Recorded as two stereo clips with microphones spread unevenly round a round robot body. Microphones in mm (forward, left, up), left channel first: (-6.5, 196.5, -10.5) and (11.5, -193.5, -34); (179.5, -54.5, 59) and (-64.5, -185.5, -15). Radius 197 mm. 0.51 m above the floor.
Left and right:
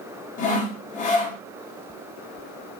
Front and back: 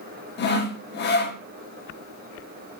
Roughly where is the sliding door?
I don't hear a sliding door.